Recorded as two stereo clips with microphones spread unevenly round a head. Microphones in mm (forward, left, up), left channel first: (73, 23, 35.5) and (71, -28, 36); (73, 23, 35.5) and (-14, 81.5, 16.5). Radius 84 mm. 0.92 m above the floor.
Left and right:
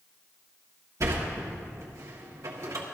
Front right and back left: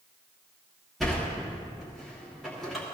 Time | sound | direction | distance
1.0 | a sliding door | 125° right | 1.4 m